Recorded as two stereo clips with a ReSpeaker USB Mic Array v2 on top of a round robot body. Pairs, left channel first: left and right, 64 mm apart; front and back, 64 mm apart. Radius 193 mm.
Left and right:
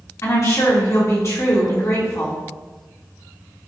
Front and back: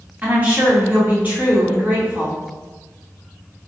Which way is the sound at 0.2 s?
120° left.